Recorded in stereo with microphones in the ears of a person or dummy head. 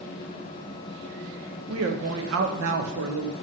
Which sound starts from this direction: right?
A woman speaking, at 1.7 s.